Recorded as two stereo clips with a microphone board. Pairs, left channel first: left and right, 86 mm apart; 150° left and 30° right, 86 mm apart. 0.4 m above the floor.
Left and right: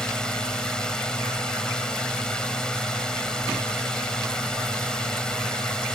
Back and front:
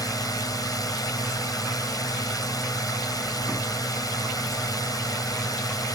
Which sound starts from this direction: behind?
A drone, at 0.0 s.